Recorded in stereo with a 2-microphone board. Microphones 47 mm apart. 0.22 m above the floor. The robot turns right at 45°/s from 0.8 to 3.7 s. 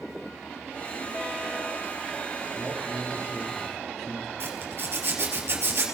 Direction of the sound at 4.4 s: 55° right (ahead or behind).